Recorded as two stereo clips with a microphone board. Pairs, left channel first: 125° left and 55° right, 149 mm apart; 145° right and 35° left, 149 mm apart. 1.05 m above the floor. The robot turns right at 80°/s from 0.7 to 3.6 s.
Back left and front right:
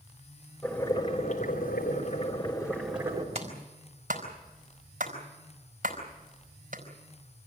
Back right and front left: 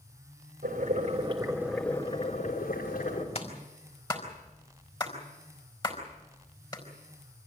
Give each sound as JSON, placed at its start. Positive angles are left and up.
{"t": 0.6, "sound": "boiling", "azimuth_deg": 40, "distance_m": 4.0}
{"t": 3.4, "sound": "a clap", "azimuth_deg": -100, "distance_m": 4.0}